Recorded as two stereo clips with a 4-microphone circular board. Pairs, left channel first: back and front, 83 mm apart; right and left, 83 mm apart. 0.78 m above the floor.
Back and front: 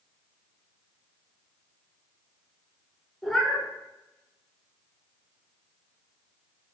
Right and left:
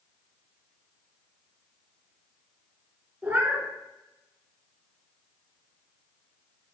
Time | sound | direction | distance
3.2 | a cat meowing | 105° left | 0.7 m